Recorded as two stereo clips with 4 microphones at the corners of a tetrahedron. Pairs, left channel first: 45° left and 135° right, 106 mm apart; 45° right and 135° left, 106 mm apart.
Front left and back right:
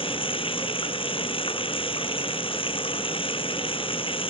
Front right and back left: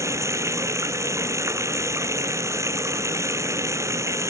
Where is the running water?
75° left.